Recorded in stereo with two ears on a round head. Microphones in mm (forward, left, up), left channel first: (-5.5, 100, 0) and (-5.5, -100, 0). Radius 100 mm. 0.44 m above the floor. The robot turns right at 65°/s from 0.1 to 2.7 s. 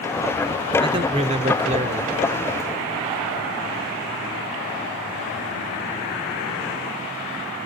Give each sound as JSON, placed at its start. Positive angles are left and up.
{"t": 0.8, "sound": "a man speaking", "azimuth_deg": -140, "distance_m": 0.9}